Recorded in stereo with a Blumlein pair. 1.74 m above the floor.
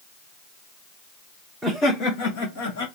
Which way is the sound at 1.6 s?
5° left.